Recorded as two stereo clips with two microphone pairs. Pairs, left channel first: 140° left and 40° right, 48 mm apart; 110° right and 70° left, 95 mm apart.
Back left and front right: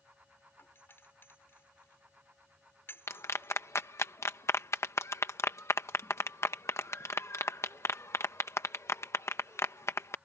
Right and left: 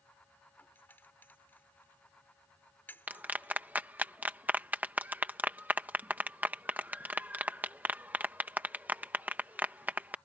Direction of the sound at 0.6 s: Straight behind.